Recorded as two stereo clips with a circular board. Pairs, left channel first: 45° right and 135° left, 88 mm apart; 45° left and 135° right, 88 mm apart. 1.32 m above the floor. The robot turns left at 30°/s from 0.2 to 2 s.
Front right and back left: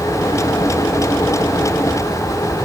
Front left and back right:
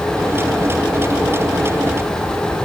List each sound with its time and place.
Only background noise.